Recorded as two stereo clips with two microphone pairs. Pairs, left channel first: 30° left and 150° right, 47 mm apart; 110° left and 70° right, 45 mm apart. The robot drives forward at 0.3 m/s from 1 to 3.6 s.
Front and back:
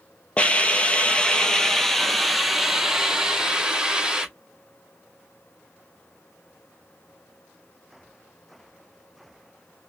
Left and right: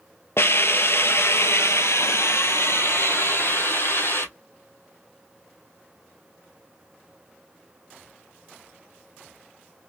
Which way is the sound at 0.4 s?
95° left.